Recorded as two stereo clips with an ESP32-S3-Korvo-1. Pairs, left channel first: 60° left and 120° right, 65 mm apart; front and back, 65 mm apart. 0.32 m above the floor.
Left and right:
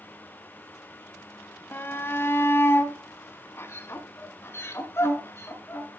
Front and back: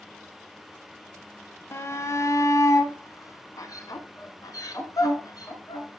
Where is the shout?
20° left, 1.4 m; by 6.0 s 15° left, 4 m.